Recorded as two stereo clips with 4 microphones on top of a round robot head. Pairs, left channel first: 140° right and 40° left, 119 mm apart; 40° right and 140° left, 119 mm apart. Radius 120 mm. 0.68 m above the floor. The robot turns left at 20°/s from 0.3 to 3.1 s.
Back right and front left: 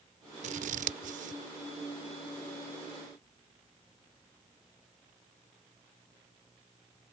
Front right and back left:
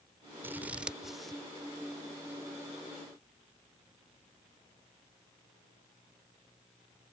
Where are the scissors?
65° left; by 1.4 s 45° left.